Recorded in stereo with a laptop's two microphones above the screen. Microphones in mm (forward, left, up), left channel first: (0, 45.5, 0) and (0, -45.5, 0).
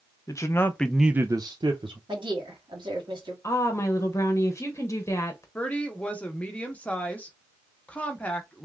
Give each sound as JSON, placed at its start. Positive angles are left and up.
{"t": 0.3, "sound": "a man speaking", "side_deg": 35, "distance_m": 1.0}
{"t": 2.1, "sound": "a woman speaking", "side_deg": -60, "distance_m": 1.8}
{"t": 3.4, "sound": "a woman speaking", "side_deg": 30, "distance_m": 0.9}
{"t": 5.5, "sound": "a woman speaking", "side_deg": 15, "distance_m": 0.8}